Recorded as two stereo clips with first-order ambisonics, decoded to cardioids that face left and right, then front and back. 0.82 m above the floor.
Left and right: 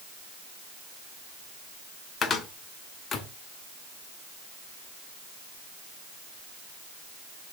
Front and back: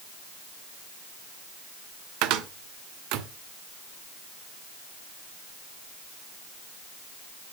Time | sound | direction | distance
2.2 | a cupboard door | 155° left | 0.9 m